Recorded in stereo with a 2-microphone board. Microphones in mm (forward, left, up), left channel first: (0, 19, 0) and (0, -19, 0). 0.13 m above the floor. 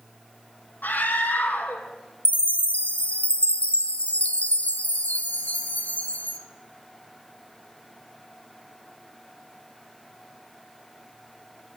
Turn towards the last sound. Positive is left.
turn(degrees=40)  # may be behind; listen again after turning